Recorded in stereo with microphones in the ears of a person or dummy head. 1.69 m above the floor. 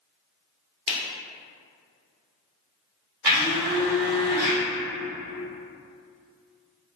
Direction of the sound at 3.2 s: 15° right (ahead or behind).